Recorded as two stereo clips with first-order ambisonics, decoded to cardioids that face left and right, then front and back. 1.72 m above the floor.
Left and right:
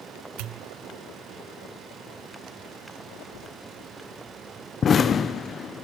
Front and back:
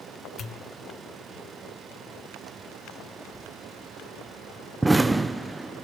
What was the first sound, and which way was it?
A pop, 65° right.